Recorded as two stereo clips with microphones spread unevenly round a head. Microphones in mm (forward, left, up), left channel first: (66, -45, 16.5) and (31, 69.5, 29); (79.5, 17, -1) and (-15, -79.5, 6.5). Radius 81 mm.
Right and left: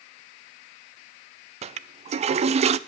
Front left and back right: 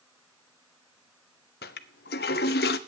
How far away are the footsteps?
No footsteps in this recording.